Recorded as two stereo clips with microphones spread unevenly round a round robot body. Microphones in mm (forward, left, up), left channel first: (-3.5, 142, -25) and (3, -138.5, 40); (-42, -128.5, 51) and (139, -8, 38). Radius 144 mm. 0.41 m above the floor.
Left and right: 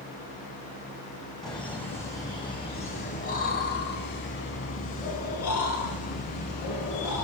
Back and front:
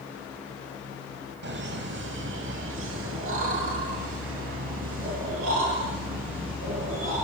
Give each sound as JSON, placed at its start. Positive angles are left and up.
{"t": 1.4, "sound": "laughter", "azimuth_deg": 5, "distance_m": 3.5}